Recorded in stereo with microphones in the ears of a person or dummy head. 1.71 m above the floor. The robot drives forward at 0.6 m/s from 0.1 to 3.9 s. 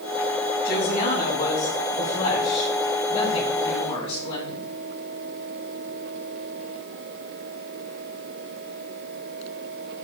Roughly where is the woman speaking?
Left.